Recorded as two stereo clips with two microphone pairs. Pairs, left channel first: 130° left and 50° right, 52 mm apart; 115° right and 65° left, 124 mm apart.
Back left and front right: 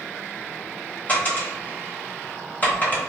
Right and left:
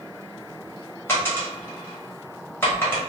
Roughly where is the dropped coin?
Behind.